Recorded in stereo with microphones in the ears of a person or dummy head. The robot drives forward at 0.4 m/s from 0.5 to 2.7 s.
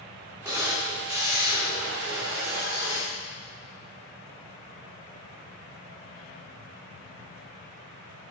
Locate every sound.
0.5 s a camera shutter: 10° right (ahead or behind), 4 m